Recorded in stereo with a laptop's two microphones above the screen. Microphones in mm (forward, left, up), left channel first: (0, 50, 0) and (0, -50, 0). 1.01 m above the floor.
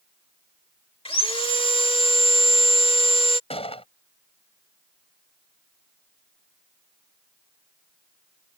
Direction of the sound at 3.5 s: 75° left (ahead or behind).